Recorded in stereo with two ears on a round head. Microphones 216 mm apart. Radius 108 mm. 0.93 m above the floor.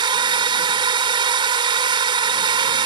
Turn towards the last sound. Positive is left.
turn(degrees=-20)  # may be behind; listen again after turning